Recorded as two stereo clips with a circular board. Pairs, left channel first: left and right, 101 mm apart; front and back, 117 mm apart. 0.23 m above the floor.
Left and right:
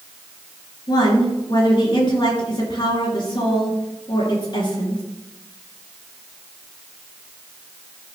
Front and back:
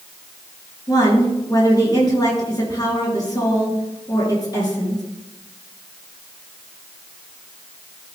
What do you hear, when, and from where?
0.9 s a woman speaking: 55° left, 4 m